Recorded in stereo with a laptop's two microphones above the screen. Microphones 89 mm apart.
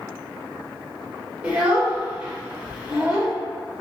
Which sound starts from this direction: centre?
A child speaking, at 1.4 s.